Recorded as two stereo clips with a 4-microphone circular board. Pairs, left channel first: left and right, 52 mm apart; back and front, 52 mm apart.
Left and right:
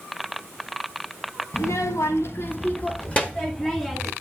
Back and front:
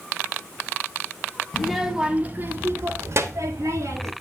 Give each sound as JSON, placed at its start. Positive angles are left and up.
{"t": 1.5, "sound": "a child speaking", "azimuth_deg": 95, "distance_m": 1.2}